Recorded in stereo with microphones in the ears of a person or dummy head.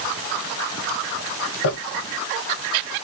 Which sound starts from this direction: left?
Crumpling, at 1.6 s.